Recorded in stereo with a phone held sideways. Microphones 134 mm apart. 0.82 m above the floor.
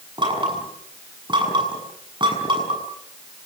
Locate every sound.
0.2 s knocking: 35° right (ahead or behind), 7 m